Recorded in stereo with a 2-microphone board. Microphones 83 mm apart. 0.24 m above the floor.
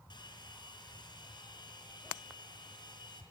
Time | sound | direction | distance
0.1 | a hair dryer | 65° left (ahead or behind) | 4 m